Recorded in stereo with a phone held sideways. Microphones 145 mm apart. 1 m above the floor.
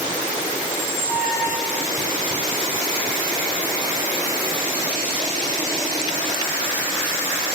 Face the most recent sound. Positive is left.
turn(degrees=-15)  # may be behind; listen again after turning